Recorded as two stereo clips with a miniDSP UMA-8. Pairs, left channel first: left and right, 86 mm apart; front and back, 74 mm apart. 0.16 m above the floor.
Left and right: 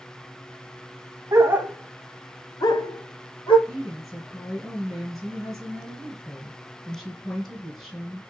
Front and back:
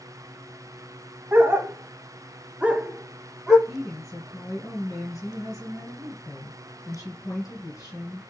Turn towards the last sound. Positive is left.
turn(degrees=0)